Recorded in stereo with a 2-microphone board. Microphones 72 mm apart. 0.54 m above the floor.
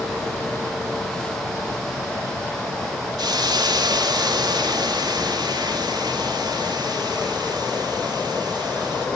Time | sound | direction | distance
3.2 | a hiss | 75° right (ahead or behind) | 1.3 m